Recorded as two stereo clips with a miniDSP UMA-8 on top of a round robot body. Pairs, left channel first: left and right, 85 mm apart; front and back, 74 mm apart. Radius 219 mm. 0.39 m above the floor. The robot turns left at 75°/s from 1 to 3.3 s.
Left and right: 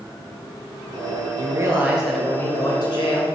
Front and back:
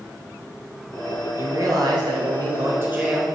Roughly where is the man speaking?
Behind right.